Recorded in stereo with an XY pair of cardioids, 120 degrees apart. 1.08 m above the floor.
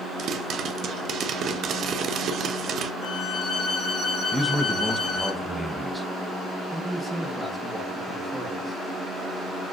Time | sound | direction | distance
0.2 | a pop | 55° right | 0.5 m
3.0 | a violin | 65° left | 2.5 m
4.3 | a man speaking | 5° right | 0.6 m
6.7 | a man speaking | 5° left | 0.8 m